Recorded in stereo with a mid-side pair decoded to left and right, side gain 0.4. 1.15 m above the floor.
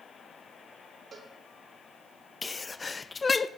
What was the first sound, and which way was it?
A cowbell, 45° right.